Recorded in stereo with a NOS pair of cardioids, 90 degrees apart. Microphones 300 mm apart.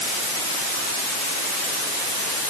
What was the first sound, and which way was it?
Only background noise.